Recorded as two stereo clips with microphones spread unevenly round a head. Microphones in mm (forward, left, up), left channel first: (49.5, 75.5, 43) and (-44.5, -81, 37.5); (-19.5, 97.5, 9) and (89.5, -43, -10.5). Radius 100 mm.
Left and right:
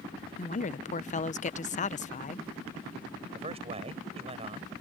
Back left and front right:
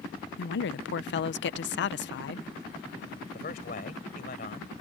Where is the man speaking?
Straight behind.